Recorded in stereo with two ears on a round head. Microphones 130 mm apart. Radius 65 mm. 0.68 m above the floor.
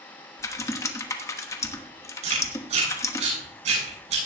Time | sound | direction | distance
0.4 | typing on a keyboard | 20° left (ahead or behind) | 1.0 m
2.2 | chewing | 50° right (ahead or behind) | 7.5 m